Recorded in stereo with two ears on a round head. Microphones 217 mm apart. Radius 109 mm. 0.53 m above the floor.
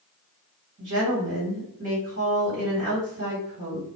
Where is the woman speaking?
45° right (ahead or behind), 1.8 m.